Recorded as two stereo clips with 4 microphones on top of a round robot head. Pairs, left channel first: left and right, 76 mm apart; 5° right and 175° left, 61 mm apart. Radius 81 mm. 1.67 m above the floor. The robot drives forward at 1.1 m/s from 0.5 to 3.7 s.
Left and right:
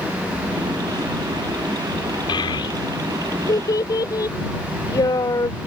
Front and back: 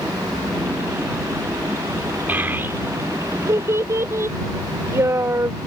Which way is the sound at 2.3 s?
115° left.